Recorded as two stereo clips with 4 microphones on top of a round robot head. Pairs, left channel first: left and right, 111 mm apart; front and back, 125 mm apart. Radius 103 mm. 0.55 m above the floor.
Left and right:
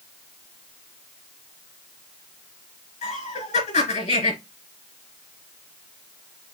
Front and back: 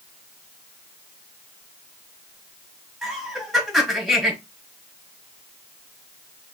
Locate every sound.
3.0 s laughter: 90° left, 4 m